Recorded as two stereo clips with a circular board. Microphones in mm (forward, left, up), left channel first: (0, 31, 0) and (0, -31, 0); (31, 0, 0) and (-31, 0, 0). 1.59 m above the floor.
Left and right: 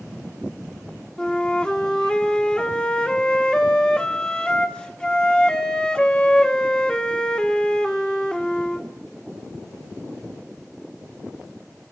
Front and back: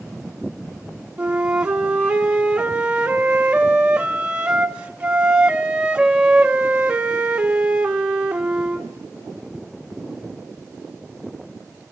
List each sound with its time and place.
1.2 s a flute: 135° left, 1.0 m